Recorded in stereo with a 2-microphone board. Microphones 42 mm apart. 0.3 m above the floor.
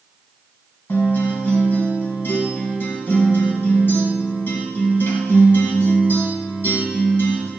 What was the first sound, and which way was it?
A guitar, 65° left (ahead or behind).